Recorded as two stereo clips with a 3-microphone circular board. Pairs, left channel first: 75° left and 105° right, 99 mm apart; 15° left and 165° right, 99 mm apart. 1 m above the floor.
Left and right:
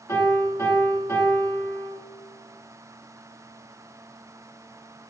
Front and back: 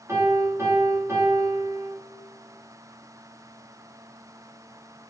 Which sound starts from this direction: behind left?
A piano, at 0.1 s.